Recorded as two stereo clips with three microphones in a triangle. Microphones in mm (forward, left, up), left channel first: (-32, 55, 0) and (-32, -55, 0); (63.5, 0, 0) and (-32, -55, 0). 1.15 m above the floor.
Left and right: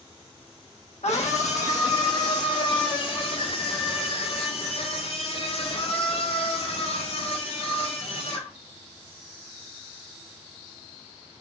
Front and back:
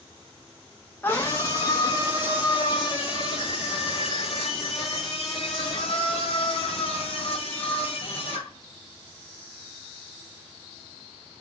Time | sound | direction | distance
1.0 | a scream | 100° left | 0.9 m